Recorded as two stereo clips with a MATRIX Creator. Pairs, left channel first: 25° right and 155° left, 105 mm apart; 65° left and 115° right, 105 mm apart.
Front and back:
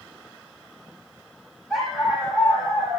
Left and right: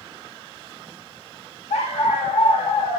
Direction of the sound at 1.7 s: 65° left.